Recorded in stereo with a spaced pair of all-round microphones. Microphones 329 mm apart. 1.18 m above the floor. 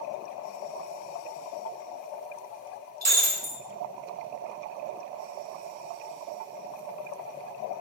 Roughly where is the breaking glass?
Right.